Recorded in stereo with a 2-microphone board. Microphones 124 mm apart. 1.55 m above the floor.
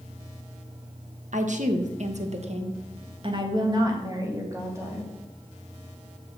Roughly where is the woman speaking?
Right.